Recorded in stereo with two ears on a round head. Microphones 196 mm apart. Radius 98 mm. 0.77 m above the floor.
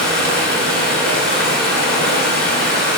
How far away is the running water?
About 2.5 m.